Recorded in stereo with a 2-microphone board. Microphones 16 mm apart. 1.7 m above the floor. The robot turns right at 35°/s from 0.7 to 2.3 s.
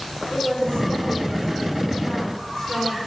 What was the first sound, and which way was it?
A woman speaking, 80° left.